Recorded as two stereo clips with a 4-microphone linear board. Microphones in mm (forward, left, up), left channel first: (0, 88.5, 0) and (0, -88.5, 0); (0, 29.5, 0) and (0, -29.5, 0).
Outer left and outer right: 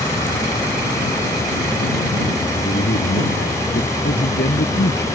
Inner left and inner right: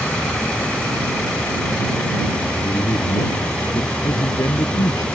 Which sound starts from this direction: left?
A man speaking, at 2.6 s.